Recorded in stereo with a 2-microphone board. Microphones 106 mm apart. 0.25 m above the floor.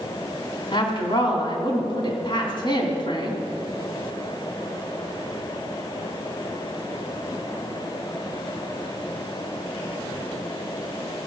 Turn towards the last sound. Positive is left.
turn(degrees=50)  # may be behind; listen again after turning